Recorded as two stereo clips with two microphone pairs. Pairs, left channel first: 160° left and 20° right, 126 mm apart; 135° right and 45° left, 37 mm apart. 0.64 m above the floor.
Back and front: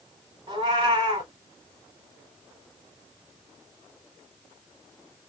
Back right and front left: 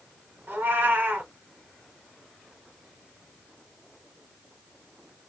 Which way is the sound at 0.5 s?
20° left.